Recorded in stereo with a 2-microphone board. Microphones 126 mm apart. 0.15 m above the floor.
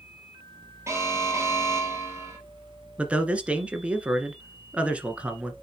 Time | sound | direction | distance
0.9 | an alarm | 20° right (ahead or behind) | 3 m
3.0 | a man speaking | 10° right (ahead or behind) | 1.6 m